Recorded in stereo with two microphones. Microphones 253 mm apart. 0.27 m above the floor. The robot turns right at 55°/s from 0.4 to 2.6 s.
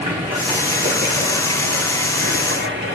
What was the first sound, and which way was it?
Running water, 170° right.